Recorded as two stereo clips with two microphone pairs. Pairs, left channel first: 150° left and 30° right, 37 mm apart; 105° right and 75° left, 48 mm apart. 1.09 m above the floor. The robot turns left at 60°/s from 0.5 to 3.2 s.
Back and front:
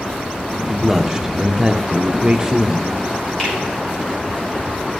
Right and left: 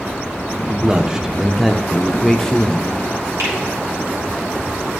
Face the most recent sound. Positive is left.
turn(degrees=75)